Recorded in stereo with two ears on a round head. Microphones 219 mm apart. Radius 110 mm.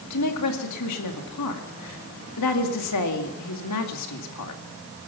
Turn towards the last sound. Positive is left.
turn(degrees=75)  # may be behind; listen again after turning